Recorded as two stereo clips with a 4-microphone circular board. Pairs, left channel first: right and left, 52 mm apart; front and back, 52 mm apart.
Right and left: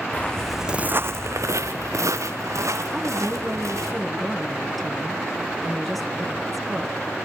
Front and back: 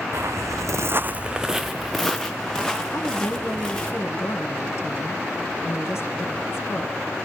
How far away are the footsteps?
About 0.9 m.